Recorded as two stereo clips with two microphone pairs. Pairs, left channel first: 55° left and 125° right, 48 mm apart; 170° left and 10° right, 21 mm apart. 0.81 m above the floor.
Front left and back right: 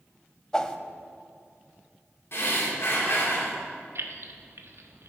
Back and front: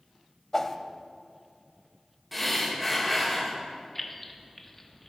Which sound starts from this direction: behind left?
A whoosh, at 0.5 s.